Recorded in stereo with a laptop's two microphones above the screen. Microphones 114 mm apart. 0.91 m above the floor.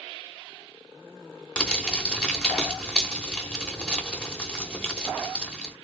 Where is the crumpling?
5° left (ahead or behind), 0.9 m.